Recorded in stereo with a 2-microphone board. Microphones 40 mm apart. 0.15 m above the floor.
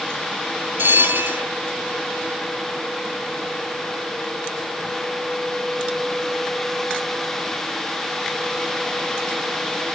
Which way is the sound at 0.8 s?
70° right (ahead or behind).